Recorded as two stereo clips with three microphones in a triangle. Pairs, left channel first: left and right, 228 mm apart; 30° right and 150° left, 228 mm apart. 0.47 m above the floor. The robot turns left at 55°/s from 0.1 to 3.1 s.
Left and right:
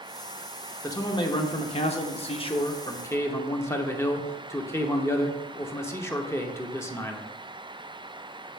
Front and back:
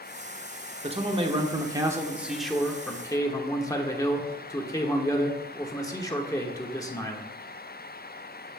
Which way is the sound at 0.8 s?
150° left.